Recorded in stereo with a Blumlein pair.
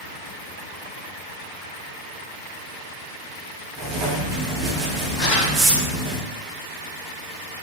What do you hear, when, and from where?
3.8 s writing: 25° right, 1.1 m
5.2 s crumpling: 25° left, 1.4 m